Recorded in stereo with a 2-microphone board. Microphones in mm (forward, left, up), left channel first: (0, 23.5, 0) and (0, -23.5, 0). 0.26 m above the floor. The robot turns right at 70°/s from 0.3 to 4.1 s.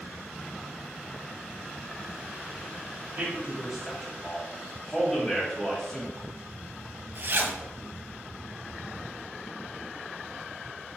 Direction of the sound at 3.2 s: 30° right (ahead or behind).